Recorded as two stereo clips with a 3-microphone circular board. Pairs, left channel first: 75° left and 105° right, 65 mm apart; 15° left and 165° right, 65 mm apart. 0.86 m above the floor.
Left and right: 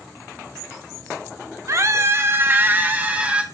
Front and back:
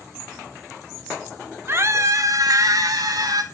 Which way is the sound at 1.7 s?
125° right.